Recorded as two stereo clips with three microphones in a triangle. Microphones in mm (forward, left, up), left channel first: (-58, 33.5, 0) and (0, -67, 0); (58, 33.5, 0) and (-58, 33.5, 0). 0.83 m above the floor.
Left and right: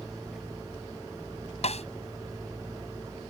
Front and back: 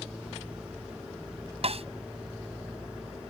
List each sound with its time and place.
1.6 s a snare drum: 150° left